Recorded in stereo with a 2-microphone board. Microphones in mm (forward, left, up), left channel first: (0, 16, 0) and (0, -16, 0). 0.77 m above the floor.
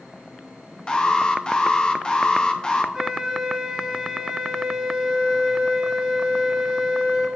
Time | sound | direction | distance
0.9 | an alarm | 25° left (ahead or behind) | 0.7 m
2.9 | a flute | 10° right (ahead or behind) | 2.5 m